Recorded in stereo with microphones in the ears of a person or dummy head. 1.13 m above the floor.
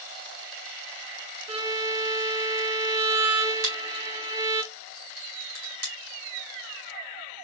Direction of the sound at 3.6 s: 50° right (ahead or behind).